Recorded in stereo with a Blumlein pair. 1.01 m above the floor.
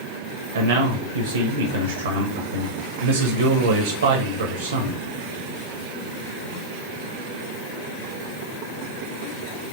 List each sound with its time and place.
0.5 s a man speaking: 70° right, 0.8 m